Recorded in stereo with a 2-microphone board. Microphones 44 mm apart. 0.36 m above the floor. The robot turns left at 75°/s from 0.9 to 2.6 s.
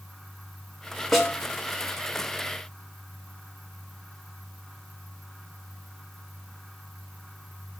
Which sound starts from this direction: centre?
A snare drum, at 1.1 s.